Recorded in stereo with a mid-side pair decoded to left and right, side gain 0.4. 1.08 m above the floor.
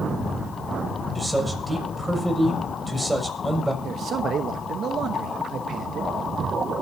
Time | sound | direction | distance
1.1 | a man speaking | 10° right | 6 m
3.8 | a man speaking | 65° right | 1.0 m